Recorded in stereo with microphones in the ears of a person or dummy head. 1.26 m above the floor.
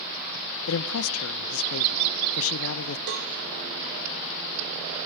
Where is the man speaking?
80° left, 0.7 m.